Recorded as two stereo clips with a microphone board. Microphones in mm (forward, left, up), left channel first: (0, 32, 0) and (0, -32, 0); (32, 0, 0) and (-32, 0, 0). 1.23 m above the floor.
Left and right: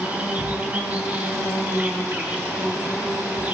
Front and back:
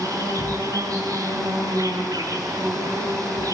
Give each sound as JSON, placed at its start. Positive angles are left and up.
{"t": 0.0, "sound": "an insect", "azimuth_deg": -155, "distance_m": 8.0}